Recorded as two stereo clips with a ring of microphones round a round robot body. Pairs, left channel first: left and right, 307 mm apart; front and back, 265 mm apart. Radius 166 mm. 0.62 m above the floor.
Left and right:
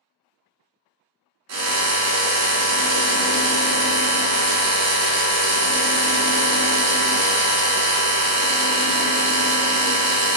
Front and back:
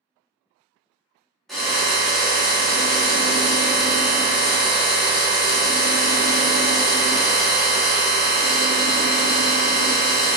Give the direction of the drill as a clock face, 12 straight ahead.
3 o'clock.